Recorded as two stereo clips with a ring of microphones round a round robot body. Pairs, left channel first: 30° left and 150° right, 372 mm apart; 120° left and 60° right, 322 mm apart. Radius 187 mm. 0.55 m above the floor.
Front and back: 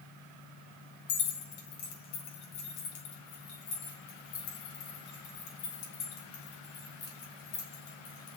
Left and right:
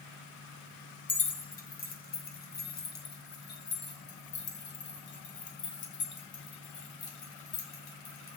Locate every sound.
1.1 s keys jangling: 55° left, 3.5 m; by 8.4 s 65° left, 7 m